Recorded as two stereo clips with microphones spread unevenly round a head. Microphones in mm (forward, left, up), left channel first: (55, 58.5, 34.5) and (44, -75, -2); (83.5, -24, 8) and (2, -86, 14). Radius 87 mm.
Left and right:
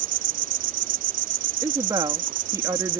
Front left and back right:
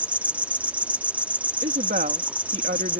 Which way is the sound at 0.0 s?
75° right.